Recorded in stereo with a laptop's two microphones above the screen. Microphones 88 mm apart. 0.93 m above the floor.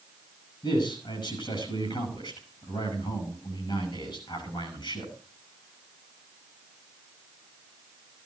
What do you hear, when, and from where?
0.6 s a man speaking: 55° left (ahead or behind), 9 m